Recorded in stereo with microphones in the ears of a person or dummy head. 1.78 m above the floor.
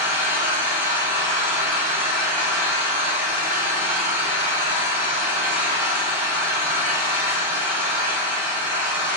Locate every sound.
0.0 s an engine running: 50° right (ahead or behind), 2.5 m